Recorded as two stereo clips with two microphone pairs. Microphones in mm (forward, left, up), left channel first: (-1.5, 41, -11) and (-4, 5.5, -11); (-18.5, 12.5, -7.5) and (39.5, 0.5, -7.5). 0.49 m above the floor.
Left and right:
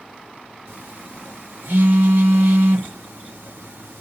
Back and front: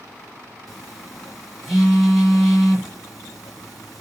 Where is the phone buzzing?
105° right, 4.5 m.